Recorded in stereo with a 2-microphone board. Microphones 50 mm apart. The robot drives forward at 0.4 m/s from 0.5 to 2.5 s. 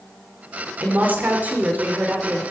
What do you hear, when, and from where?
0.8 s a woman speaking: 40° right (ahead or behind), 3 m; by 2.4 s 35° right (ahead or behind), 3.5 m